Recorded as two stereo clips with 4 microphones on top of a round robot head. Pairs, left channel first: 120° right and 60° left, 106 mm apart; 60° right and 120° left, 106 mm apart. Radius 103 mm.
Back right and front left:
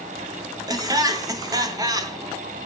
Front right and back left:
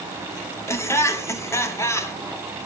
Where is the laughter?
5° left, 2 m.